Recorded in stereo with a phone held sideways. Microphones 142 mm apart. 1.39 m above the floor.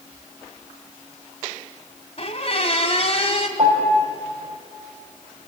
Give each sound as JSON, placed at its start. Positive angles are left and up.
{"t": 2.2, "sound": "a squeak", "side_deg": 45, "distance_m": 1.6}
{"t": 3.6, "sound": "a piano", "side_deg": -35, "distance_m": 6.0}